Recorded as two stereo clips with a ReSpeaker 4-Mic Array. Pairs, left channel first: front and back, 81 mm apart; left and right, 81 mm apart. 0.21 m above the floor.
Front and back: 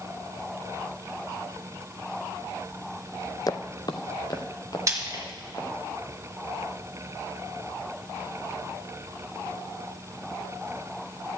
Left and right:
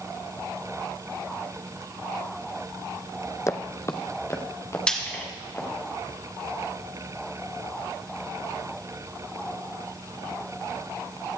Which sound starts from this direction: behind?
Frying, at 4.9 s.